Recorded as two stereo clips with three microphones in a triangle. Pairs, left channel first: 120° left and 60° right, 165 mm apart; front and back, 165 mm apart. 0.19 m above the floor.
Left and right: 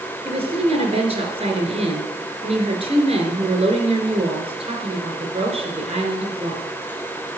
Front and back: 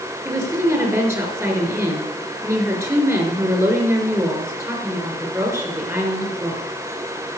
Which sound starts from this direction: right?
A woman speaking, at 0.2 s.